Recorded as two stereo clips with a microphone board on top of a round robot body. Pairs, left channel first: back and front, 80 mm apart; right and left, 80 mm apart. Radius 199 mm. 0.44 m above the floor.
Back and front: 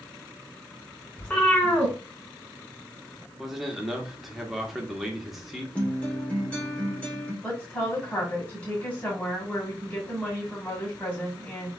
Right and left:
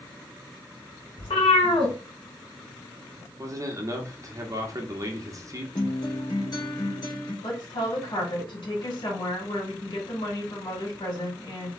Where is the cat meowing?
105° right, 1.2 m.